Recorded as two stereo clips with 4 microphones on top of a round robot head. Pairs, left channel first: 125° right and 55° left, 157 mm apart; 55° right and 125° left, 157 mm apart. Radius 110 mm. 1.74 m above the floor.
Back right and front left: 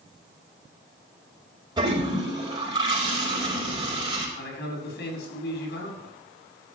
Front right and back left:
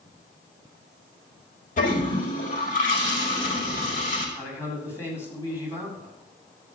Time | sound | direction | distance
1.8 | a toilet flushing | 10° right | 5.5 m
4.4 | a man speaking | 130° right | 4.5 m